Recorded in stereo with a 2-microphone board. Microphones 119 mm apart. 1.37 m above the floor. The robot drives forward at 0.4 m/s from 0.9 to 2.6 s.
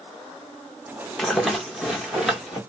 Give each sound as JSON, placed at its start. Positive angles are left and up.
{"t": 1.2, "sound": "a rattle", "side_deg": 0, "distance_m": 0.7}